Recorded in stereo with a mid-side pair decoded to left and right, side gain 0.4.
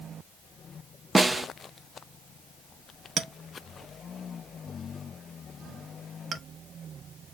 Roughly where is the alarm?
I don't hear an alarm.